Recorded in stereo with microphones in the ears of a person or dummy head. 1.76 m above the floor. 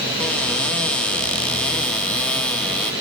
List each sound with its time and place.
0.2 s a cupboard door: 5° left (ahead or behind), 0.5 m